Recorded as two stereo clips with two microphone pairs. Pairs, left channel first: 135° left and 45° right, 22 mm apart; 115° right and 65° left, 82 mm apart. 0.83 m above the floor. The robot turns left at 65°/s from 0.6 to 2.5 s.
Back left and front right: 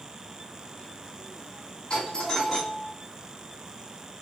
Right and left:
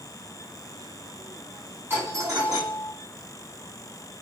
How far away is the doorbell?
About 2 m.